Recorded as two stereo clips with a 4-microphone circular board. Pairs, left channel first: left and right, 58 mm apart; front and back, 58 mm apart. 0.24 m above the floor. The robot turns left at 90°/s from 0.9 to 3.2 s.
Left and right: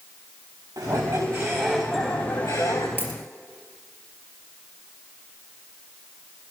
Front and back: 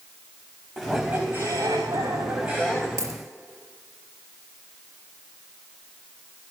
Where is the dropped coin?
155° right, 3 m; by 3.2 s 175° right, 3 m.